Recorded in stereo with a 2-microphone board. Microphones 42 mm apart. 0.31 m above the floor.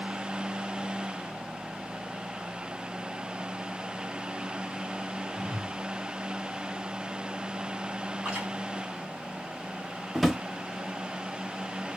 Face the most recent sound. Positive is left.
turn(degrees=-5)  # may be behind; listen again after turning